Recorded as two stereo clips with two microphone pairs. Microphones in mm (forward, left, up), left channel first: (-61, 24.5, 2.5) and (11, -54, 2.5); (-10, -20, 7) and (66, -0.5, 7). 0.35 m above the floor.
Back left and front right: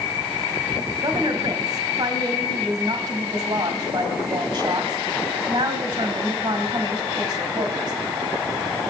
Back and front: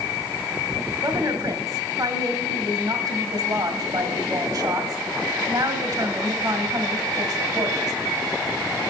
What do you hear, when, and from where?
1.0 s a woman speaking: 15° right, 1.8 m